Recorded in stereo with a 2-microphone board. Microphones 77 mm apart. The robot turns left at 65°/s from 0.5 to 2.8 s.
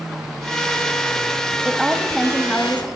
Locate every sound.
1.6 s a woman speaking: 10° right (ahead or behind), 1.2 m; by 2.9 s 20° left (ahead or behind), 1.2 m